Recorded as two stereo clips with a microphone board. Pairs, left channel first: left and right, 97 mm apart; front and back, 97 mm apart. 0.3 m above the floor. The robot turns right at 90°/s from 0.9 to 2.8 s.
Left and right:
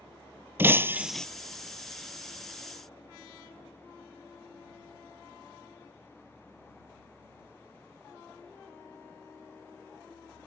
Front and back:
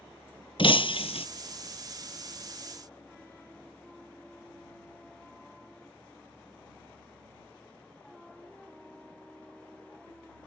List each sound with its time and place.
0.6 s breaking glass: 20° right; by 1.3 s 10° left